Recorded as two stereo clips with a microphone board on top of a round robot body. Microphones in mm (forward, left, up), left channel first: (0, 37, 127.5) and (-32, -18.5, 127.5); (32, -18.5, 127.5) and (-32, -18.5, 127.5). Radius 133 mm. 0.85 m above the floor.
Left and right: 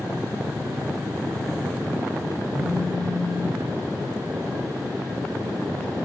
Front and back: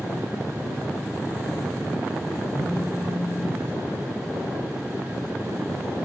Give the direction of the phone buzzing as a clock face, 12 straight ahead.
11 o'clock.